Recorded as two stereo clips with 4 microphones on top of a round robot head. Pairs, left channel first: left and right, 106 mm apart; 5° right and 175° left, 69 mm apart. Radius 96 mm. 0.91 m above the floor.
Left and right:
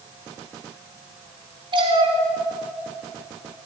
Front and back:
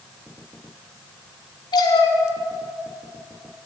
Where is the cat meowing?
40° right, 2.5 m; by 3.7 s 50° right, 3.5 m.